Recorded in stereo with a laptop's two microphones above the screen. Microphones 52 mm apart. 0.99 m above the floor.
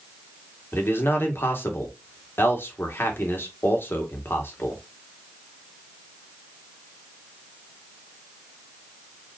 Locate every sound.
0.7 s a man speaking: 50° left (ahead or behind), 2.0 m